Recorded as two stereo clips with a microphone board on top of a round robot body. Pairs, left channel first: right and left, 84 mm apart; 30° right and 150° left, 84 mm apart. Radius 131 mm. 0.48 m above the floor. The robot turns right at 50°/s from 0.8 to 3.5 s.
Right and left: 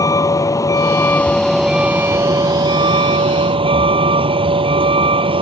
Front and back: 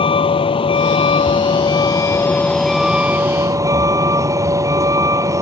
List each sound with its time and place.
0.0 s a vehicle: 40° right; by 5.4 s 95° left